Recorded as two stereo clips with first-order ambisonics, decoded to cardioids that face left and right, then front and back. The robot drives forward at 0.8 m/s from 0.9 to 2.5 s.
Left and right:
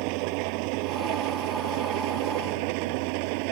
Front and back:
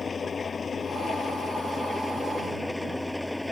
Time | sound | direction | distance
0.0 | an engine running | 75° right | ?